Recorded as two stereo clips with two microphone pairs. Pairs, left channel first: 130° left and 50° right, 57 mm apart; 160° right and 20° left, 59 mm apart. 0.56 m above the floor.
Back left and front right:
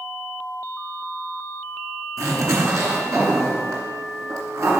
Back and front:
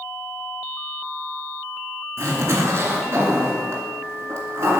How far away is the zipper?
About 2.5 m.